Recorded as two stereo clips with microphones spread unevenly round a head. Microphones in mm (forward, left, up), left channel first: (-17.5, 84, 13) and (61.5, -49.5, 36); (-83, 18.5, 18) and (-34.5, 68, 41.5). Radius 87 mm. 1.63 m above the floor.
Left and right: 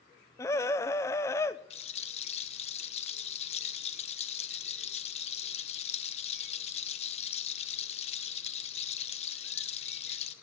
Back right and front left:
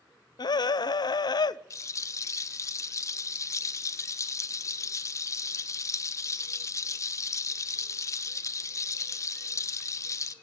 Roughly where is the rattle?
Behind.